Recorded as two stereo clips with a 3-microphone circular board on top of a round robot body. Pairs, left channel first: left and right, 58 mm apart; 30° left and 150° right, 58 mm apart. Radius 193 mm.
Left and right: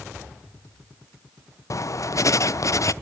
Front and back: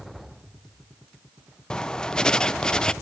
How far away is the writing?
About 0.6 m.